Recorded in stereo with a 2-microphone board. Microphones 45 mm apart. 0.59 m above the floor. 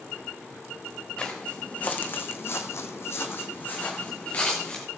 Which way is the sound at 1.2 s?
25° left (ahead or behind).